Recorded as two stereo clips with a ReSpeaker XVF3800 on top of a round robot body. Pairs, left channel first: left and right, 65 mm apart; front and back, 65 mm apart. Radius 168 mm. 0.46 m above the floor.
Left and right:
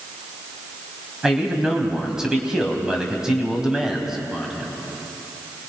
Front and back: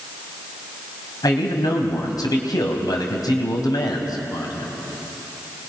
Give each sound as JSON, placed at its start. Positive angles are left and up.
{"t": 1.2, "sound": "a man speaking", "azimuth_deg": -10, "distance_m": 4.0}